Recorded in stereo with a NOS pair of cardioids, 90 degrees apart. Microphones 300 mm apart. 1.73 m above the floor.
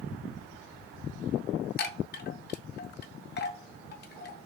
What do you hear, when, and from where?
1.8 s a chime: 35° left, 0.8 m